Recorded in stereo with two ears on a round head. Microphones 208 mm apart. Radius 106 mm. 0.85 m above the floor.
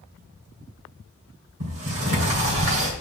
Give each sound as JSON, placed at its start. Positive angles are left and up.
{"t": 1.6, "sound": "a sliding door", "side_deg": -65, "distance_m": 2.5}